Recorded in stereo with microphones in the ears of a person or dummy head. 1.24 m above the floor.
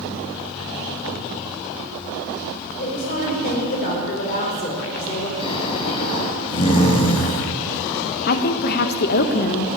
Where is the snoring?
30° left (ahead or behind), 3 m.